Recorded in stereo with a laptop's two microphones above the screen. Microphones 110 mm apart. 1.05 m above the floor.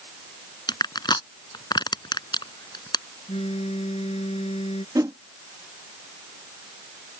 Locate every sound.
0.7 s crushing: 40° left (ahead or behind)
3.3 s a phone buzzing: 65° left (ahead or behind)
5.0 s a whoosh: 35° right (ahead or behind)